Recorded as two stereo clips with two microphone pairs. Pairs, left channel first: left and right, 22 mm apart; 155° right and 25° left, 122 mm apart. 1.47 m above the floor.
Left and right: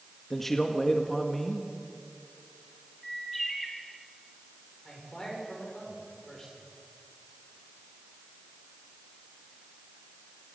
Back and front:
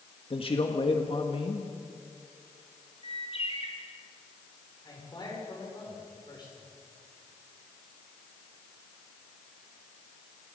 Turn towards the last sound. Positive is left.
turn(degrees=150)